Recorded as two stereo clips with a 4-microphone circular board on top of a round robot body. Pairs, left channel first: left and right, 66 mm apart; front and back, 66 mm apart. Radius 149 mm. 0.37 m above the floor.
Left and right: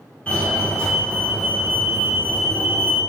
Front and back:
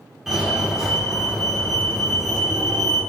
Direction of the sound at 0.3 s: 105° left.